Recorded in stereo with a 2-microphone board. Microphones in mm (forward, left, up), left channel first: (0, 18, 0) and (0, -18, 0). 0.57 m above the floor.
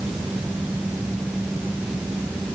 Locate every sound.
Only background noise.